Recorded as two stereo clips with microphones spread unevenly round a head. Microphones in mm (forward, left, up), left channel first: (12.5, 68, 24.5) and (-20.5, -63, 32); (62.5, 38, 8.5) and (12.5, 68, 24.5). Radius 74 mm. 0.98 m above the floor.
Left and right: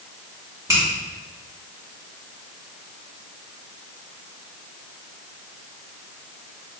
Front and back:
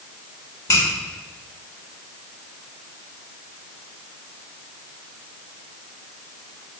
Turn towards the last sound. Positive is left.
turn(degrees=-35)